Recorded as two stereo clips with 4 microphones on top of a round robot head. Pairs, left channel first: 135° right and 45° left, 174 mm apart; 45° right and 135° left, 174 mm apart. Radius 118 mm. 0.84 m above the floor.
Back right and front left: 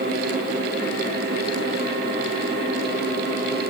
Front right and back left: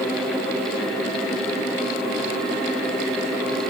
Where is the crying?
No crying in this recording.